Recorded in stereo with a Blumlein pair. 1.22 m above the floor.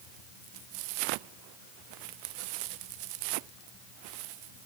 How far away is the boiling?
No boiling in this recording.